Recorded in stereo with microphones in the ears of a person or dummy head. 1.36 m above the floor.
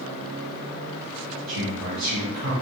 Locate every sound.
1.5 s a man speaking: 35° right (ahead or behind), 1.0 m